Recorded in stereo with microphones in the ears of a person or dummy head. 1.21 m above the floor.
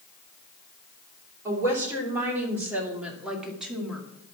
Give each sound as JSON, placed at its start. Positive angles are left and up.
{"t": 1.4, "sound": "a woman speaking", "side_deg": -20, "distance_m": 3.5}